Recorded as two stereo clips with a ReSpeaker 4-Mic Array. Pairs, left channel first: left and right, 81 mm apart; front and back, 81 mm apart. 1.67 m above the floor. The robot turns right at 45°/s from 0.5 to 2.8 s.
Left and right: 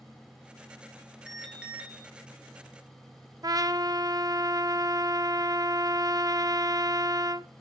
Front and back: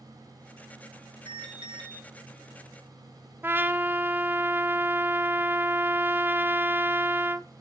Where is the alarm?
175° left, 2.5 m; by 2.0 s 155° right, 2.5 m.